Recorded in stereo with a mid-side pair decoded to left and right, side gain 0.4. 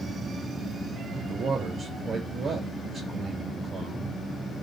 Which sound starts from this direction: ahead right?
A man speaking, at 1.1 s.